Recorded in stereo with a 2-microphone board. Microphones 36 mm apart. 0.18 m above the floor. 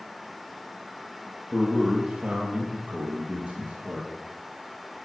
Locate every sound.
1.5 s a man speaking: 30° right (ahead or behind), 3 m; by 4.1 s 45° right (ahead or behind), 4 m